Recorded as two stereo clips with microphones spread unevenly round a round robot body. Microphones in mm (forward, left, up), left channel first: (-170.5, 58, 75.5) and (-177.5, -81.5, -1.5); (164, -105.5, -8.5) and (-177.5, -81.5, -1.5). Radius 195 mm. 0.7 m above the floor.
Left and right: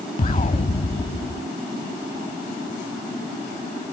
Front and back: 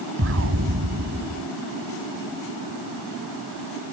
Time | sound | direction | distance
0.2 | an explosion | 115° left | ?